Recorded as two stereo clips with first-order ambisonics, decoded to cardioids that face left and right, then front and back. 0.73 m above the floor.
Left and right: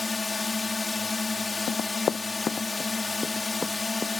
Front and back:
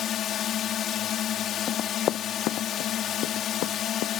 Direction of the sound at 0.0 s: 20° left.